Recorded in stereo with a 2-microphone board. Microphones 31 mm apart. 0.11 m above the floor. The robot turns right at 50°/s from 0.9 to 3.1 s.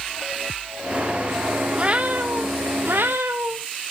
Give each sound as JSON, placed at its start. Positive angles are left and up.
{"t": 1.8, "sound": "a cat meowing", "azimuth_deg": -155, "distance_m": 1.0}